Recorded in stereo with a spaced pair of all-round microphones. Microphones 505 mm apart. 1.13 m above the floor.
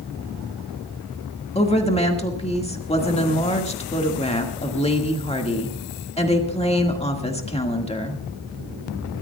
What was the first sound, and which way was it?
A woman speaking, 10° left (ahead or behind).